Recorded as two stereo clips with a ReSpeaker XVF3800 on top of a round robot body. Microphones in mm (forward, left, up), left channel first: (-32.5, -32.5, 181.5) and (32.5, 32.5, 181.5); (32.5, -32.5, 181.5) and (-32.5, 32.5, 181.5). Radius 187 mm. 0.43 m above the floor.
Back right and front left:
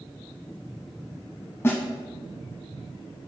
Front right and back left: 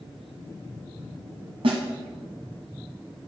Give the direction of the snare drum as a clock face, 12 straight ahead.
7 o'clock.